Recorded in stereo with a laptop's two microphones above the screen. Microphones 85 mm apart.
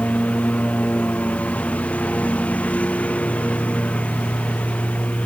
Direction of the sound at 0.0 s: 15° left (ahead or behind).